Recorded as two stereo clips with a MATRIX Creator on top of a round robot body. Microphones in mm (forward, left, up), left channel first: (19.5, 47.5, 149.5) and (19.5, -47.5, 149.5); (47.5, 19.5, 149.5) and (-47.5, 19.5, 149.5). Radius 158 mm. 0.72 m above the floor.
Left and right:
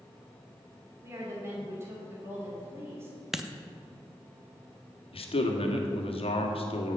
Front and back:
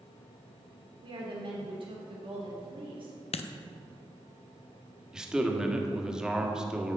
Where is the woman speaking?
155° right, 2.5 m.